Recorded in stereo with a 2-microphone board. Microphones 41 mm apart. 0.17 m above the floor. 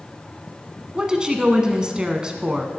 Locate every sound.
0.9 s a woman speaking: 20° right (ahead or behind), 1.3 m